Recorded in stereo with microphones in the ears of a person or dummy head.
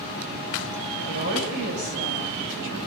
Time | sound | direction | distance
1.1 | a woman speaking | 60° right (ahead or behind) | 10 m